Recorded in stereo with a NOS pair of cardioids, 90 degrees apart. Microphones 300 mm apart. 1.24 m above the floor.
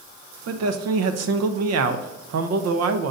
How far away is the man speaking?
About 0.8 m.